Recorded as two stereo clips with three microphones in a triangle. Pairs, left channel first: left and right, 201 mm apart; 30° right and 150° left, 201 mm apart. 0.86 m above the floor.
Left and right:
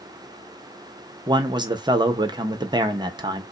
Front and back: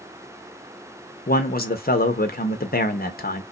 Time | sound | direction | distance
1.3 | a man speaking | 25° right | 0.8 m